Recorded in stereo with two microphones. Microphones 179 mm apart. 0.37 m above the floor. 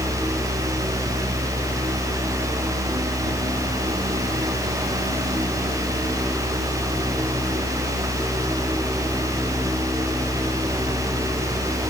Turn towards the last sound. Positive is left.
No sound to turn to.